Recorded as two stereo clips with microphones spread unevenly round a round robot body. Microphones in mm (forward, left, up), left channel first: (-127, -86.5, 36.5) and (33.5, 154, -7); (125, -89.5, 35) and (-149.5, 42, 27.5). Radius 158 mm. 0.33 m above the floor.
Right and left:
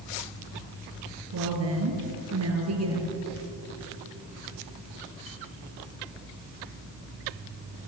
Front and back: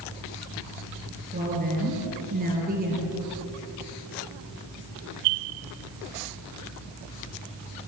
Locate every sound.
1.3 s a woman speaking: 90° left, 5.5 m